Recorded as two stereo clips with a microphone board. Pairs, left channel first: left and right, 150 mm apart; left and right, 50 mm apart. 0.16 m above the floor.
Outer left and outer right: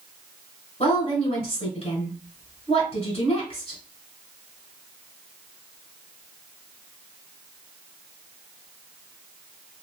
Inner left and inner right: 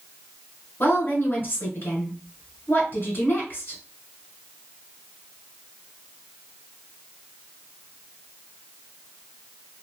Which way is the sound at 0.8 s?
40° left (ahead or behind).